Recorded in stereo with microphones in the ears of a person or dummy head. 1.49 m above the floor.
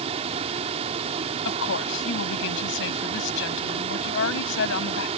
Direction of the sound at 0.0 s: 30° right (ahead or behind).